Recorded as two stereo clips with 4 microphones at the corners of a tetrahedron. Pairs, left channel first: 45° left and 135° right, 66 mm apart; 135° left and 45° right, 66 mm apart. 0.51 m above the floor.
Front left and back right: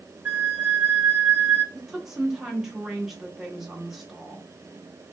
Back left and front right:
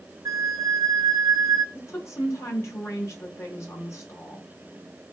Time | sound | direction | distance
0.2 | a flute | 70° right | 0.6 m
1.8 | a woman speaking | 145° left | 0.9 m